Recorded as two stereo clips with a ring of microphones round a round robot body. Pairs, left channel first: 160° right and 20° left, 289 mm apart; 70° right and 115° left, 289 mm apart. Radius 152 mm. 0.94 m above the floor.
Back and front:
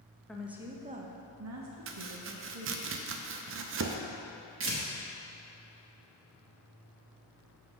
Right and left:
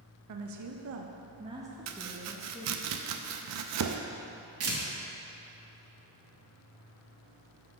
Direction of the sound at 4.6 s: 70° left.